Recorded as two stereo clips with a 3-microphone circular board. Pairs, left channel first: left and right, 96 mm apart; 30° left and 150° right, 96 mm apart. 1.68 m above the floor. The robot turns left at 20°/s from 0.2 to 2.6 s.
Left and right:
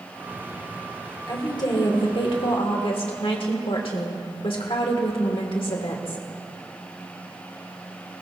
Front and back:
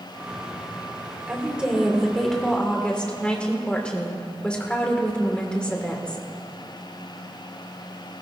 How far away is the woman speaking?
About 1.7 m.